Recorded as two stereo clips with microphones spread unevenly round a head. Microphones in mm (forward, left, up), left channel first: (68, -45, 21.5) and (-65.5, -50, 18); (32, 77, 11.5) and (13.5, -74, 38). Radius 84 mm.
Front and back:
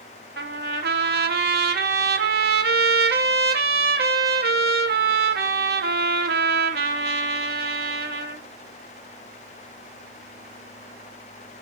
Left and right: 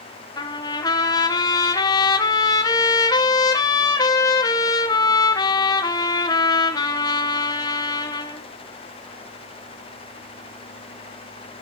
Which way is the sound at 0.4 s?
155° left.